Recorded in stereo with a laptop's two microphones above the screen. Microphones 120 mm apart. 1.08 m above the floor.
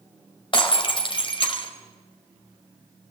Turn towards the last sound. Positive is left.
turn(degrees=45)  # may be behind; listen again after turning